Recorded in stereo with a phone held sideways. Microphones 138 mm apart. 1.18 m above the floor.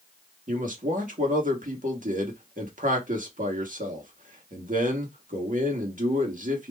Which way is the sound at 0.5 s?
75° right (ahead or behind).